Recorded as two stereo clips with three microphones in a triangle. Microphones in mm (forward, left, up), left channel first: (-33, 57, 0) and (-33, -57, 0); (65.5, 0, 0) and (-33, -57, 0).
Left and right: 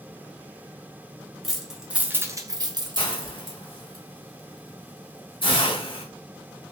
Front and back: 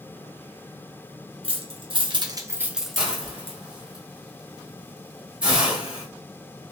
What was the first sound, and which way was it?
Keys jangling, straight behind.